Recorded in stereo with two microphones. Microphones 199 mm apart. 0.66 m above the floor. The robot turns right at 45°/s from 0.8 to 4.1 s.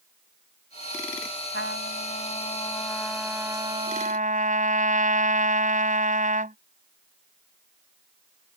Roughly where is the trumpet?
Left.